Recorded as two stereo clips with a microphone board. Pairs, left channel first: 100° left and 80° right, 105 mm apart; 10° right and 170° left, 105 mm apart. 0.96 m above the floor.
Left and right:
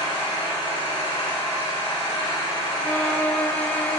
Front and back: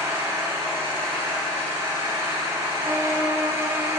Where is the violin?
160° left, 0.5 m.